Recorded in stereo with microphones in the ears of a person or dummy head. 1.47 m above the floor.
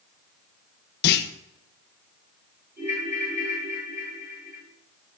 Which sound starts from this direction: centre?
A ringtone, at 2.8 s.